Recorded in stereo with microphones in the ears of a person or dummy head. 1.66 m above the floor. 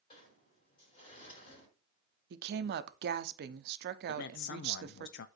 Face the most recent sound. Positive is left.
turn(degrees=70)  # may be behind; listen again after turning